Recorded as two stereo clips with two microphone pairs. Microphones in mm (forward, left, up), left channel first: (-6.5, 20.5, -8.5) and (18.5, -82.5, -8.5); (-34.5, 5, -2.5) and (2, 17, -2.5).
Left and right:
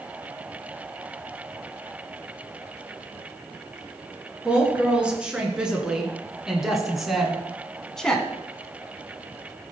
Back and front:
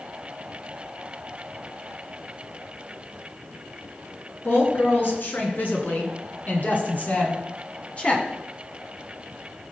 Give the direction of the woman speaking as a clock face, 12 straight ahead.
5 o'clock.